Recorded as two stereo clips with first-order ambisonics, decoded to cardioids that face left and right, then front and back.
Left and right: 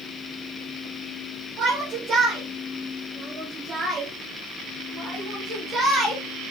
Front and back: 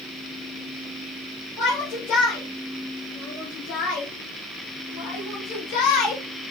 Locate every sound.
1.6 s a shout: 40° right, 4 m; by 6.2 s 15° right, 5 m